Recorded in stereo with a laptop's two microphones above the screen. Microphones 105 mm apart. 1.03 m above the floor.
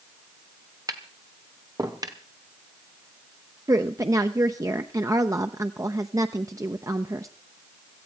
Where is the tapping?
35° right (ahead or behind), 1.0 m.